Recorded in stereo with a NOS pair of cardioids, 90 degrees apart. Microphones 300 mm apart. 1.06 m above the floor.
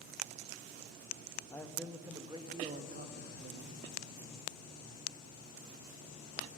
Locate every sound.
1.5 s a man speaking: 10° left, 1.1 m; by 3.8 s 40° right, 1.7 m